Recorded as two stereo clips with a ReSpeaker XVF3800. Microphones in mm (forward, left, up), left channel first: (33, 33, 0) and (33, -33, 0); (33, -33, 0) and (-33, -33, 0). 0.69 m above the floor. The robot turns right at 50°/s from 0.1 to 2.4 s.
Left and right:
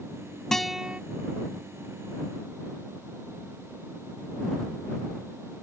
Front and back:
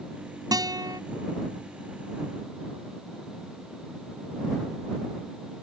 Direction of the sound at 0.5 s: 175° left.